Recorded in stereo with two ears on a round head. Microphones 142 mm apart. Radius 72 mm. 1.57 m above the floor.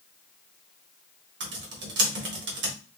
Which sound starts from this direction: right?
Typing on a keyboard, at 1.4 s.